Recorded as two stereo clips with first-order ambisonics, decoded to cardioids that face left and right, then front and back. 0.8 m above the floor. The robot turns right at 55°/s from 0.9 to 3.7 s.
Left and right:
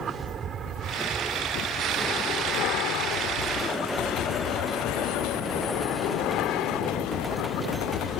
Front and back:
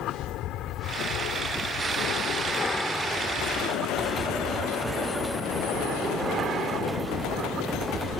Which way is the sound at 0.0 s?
35° right.